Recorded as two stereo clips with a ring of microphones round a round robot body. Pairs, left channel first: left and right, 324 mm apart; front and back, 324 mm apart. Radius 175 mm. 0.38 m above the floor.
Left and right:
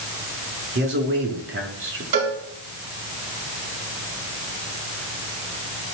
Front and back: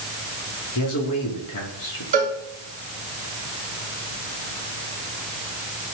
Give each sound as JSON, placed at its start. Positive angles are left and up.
{"t": 0.8, "sound": "a man speaking", "azimuth_deg": -40, "distance_m": 5.0}
{"t": 2.1, "sound": "a cowbell", "azimuth_deg": -110, "distance_m": 3.5}